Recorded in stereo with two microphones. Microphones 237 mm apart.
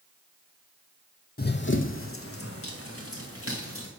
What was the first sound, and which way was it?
Running footsteps, 45° left (ahead or behind).